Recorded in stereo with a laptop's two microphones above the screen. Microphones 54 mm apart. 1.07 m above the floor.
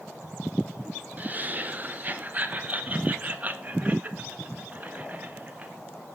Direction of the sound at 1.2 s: 30° right (ahead or behind).